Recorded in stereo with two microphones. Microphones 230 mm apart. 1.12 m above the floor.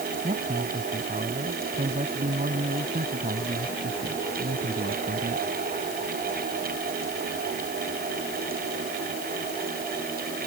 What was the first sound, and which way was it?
A man speaking, 30° right (ahead or behind).